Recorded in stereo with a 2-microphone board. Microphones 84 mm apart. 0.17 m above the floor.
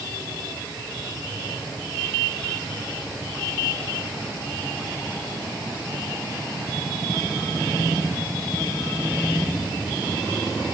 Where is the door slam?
I don't hear a door slam.